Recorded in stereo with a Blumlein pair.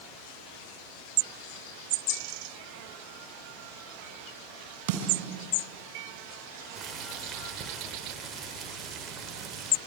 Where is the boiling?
20° right, 3 m.